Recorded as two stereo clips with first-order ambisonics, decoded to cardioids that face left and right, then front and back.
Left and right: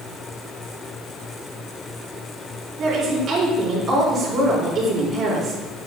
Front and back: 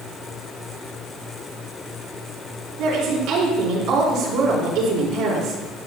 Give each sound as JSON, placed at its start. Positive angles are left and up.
{"t": 2.8, "sound": "a woman speaking", "azimuth_deg": -150, "distance_m": 4.0}